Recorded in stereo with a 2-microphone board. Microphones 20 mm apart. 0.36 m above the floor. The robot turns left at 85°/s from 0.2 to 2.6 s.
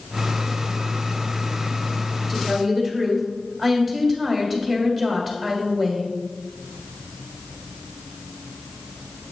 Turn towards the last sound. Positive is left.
turn(degrees=5)  # may be behind; listen again after turning